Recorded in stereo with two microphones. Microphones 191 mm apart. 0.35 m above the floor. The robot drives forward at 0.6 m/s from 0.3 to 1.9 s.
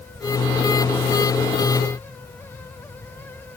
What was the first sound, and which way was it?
Only background noise.